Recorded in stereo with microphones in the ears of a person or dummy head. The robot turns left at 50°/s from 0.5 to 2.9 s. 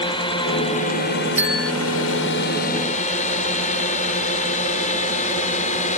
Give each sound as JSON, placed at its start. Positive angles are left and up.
{"t": 0.0, "sound": "a drone", "side_deg": 20}
{"t": 1.4, "sound": "a bell", "side_deg": -10}